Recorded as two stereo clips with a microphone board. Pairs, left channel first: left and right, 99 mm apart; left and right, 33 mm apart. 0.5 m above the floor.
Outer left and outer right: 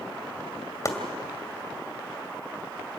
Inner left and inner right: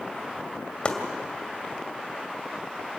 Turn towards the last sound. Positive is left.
turn(degrees=30)  # may be behind; listen again after turning